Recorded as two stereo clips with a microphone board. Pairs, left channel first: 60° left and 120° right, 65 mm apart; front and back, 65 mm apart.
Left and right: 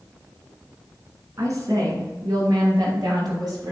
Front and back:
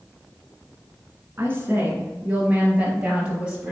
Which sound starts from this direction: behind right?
A woman speaking, at 1.4 s.